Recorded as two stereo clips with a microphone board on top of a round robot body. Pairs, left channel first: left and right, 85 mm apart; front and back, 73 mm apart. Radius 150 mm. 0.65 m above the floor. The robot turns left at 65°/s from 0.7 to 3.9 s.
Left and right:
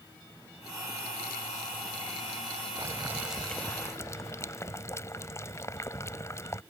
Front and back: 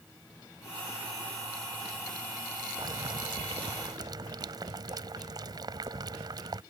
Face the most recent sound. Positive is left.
turn(degrees=145)